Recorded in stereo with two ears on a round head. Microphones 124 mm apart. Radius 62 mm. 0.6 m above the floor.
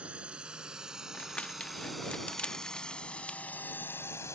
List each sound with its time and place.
0.0 s a drone: 10° right (ahead or behind); by 4.3 s 20° left (ahead or behind)
1.1 s crumpling: 10° left (ahead or behind)